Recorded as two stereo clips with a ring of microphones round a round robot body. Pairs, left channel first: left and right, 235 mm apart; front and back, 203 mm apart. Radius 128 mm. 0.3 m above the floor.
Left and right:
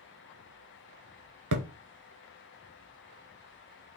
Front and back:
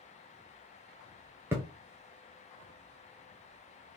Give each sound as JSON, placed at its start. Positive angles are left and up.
{"t": 1.5, "sound": "a thud", "azimuth_deg": -100, "distance_m": 0.8}